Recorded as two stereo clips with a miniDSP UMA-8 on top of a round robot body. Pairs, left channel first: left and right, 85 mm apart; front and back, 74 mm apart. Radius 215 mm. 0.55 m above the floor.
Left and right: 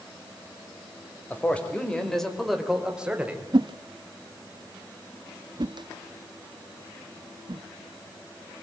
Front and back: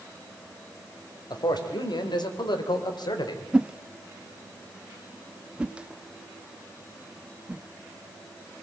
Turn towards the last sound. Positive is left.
turn(degrees=-105)